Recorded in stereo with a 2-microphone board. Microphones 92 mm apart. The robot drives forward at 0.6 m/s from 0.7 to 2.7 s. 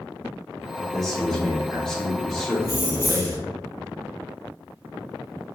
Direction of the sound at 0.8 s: 5° left (ahead or behind).